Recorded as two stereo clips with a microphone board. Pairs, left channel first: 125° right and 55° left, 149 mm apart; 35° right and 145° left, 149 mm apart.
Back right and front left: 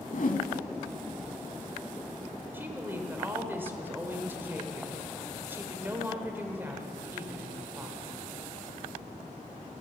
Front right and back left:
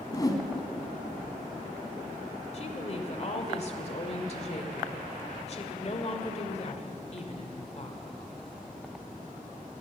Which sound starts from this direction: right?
A whoosh, at 0.1 s.